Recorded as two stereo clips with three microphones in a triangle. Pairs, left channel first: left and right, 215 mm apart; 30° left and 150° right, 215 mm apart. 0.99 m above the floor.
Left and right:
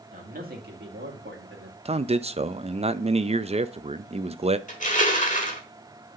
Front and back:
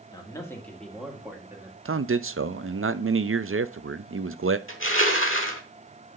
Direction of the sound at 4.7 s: 40° left.